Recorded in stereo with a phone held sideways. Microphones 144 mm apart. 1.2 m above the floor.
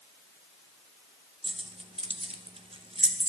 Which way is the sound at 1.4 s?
40° right (ahead or behind).